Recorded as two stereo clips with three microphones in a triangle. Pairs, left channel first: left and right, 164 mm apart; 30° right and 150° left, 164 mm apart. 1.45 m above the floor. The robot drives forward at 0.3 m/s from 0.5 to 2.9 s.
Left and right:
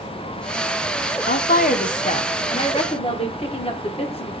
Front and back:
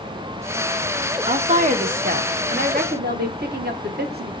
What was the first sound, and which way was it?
A woman speaking, 105° left.